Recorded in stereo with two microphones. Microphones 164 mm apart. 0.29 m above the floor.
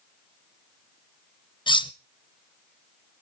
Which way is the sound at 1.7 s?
30° left (ahead or behind).